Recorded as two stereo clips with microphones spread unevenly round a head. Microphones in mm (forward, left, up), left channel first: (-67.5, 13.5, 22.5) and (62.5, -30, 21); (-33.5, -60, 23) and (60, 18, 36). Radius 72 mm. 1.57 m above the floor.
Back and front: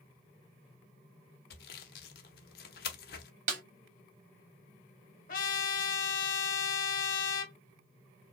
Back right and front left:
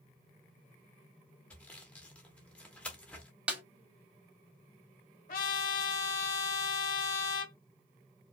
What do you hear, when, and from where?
1.5 s sawing: 135° left, 0.9 m
3.5 s a snare drum: 35° right, 1.3 m
5.3 s a trumpet: 170° right, 1.4 m